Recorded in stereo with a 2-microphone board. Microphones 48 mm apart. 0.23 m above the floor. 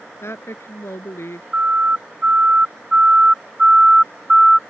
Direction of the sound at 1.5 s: 30° right (ahead or behind).